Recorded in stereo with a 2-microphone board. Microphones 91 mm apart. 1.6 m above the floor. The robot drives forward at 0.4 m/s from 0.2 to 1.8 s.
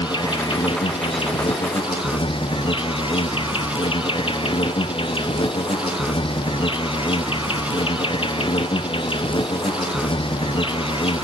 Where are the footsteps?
I don't hear footsteps.